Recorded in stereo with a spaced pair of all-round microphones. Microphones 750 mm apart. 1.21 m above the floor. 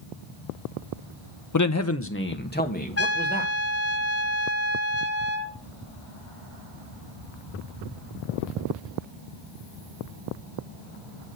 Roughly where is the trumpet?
Centre.